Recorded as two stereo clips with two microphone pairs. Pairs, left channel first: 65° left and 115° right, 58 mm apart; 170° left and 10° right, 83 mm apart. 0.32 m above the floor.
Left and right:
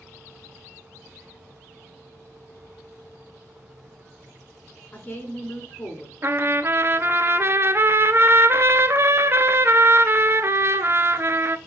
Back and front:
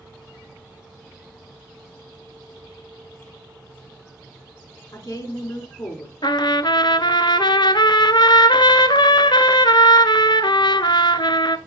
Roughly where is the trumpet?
Behind.